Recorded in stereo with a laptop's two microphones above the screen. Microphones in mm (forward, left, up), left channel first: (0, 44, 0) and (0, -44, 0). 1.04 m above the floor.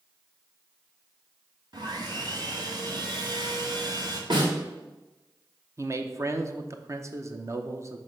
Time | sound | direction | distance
1.7 | sawing | 55° right (ahead or behind) | 1.6 m
4.3 | a snare drum | 65° right (ahead or behind) | 2 m
5.8 | a man speaking | 35° right (ahead or behind) | 0.7 m